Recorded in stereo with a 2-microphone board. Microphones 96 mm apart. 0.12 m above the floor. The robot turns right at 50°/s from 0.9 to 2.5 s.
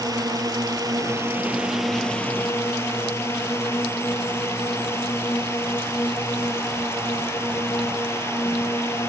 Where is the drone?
50° right; by 9.1 s 30° left.